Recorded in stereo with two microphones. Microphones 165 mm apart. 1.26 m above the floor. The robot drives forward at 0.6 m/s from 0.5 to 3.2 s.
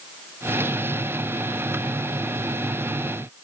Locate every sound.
Only background noise.